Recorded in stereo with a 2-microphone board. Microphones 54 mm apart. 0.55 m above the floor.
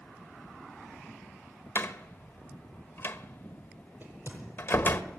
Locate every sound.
1.8 s a door slam: 45° left (ahead or behind), 1.3 m
4.0 s a crack: 40° right (ahead or behind), 9.5 m